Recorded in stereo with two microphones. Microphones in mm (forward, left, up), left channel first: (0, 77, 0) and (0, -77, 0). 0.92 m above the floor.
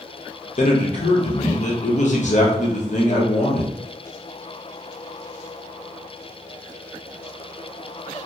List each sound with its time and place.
0.6 s a man speaking: 55° left (ahead or behind), 0.9 m